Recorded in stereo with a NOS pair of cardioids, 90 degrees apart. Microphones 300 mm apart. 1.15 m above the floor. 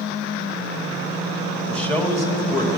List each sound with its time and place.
1.7 s a man speaking: 5° left, 2.0 m; by 2.8 s 20° left, 2.5 m